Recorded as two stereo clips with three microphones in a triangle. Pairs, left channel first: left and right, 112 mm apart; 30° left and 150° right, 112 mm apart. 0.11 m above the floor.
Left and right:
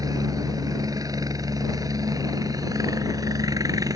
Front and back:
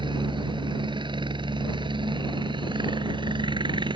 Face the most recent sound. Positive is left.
turn(degrees=-135)